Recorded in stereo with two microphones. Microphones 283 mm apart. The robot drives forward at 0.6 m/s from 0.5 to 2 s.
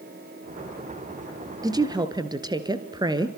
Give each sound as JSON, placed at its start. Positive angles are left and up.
{"t": 1.6, "sound": "a woman speaking", "side_deg": -15, "distance_m": 2.5}